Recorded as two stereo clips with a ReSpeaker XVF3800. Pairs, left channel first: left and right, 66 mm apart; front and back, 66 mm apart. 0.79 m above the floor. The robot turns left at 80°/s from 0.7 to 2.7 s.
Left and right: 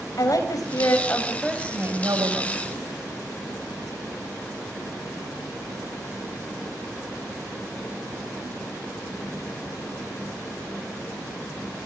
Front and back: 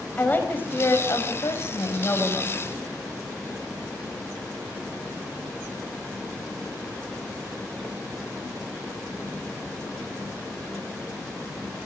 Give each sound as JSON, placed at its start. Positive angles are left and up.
{"t": 0.2, "sound": "a woman speaking", "azimuth_deg": 60, "distance_m": 4.0}